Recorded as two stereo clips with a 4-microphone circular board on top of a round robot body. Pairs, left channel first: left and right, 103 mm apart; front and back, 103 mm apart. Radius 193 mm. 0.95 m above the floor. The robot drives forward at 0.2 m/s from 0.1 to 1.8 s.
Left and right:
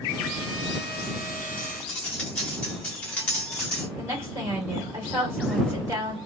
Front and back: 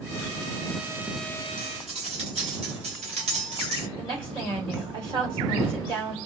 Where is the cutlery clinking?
170° left, 1.1 m.